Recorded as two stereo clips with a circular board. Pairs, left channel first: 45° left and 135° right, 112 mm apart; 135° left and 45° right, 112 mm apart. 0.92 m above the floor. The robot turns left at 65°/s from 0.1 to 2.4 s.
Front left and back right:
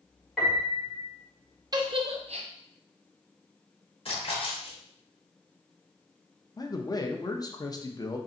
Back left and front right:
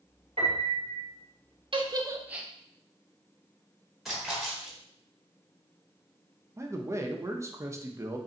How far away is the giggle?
About 0.5 m.